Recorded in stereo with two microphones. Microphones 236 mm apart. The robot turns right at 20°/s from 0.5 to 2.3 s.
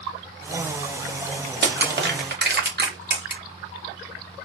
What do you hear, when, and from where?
1.6 s crushing: 45° right (ahead or behind), 1.0 m